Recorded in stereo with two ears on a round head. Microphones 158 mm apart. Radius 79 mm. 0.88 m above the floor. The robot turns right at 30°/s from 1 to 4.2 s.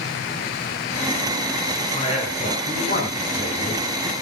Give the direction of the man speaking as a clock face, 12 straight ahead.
11 o'clock.